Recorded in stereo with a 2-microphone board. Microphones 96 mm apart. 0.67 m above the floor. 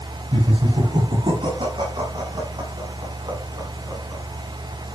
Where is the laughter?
70° right (ahead or behind), 6.5 m; by 4.2 s 45° right (ahead or behind), 8.5 m.